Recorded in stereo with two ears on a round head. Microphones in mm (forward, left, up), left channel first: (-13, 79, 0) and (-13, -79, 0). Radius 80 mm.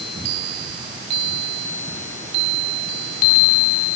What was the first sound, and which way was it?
Only background noise.